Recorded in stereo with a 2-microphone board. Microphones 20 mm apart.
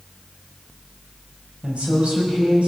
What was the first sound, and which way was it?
A woman speaking, 80° right.